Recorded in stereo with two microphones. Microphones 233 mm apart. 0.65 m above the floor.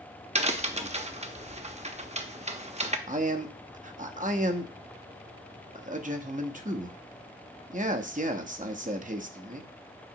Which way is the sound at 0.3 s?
30° right (ahead or behind).